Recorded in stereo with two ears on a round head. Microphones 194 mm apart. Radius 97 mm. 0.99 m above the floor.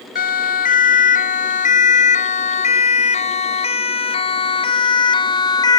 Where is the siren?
40° left (ahead or behind); by 5.8 s 20° left (ahead or behind).